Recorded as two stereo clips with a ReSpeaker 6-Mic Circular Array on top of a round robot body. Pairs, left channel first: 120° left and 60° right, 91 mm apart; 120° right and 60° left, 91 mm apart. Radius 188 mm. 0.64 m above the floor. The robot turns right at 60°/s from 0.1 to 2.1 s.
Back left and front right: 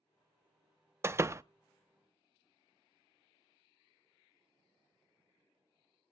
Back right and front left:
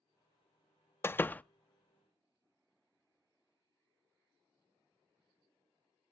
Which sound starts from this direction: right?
A door slam, at 1.0 s.